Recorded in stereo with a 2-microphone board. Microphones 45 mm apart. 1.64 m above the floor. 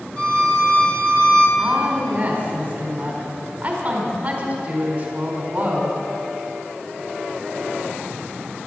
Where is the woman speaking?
30° right (ahead or behind), 4.5 m.